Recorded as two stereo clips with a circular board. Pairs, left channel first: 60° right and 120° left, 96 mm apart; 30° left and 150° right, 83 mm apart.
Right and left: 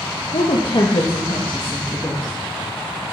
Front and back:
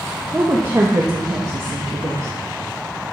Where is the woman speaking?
85° right, 1.2 m; by 2.3 s 120° right, 2 m.